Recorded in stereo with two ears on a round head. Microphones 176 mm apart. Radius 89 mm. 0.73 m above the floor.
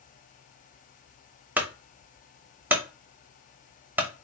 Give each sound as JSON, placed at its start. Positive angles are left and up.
{"t": 1.6, "sound": "a clunk", "side_deg": -10, "distance_m": 0.5}